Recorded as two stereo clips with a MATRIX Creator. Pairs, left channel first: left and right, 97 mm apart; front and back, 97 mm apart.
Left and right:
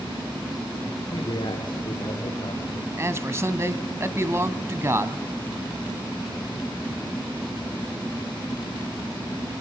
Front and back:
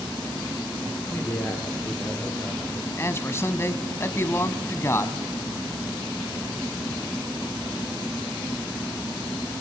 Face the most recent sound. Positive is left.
turn(degrees=-45)